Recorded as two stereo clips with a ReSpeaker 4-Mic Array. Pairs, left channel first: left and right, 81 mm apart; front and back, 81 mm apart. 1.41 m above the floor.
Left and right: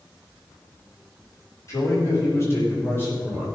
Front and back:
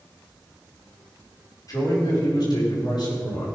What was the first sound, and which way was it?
A man speaking, 40° left.